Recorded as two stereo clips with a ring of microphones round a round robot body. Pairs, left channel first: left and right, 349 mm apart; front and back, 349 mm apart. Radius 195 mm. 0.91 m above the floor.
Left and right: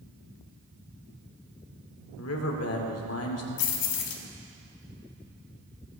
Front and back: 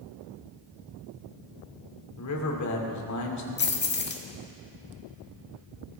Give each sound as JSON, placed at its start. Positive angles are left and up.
{"t": 2.2, "sound": "a man speaking", "azimuth_deg": 40, "distance_m": 2.5}
{"t": 3.6, "sound": "keys jangling", "azimuth_deg": 60, "distance_m": 1.5}